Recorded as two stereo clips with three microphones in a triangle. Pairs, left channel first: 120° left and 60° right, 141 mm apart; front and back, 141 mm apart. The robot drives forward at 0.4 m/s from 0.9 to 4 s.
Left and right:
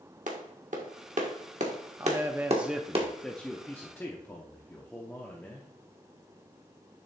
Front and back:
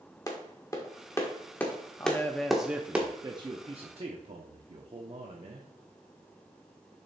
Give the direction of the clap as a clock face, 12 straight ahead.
2 o'clock.